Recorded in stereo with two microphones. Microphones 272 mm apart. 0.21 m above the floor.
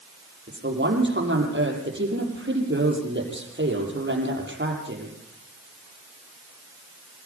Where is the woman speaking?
40° right (ahead or behind), 7 m.